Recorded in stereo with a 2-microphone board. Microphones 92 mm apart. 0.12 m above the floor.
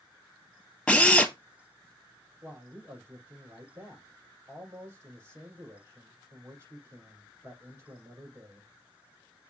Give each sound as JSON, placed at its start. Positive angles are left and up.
{"t": 0.9, "sound": "a drill", "side_deg": 10, "distance_m": 1.2}
{"t": 2.4, "sound": "a man speaking", "side_deg": -30, "distance_m": 5.0}